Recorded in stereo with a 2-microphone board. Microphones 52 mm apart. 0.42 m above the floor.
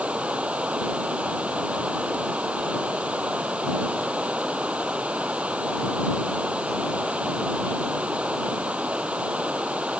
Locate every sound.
0.0 s running water: 25° right (ahead or behind)